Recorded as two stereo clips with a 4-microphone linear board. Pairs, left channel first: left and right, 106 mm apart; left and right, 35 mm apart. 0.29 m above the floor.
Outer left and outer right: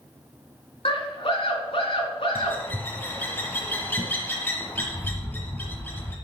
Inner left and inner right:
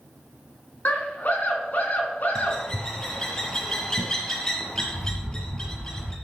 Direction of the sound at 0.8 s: 60° left (ahead or behind).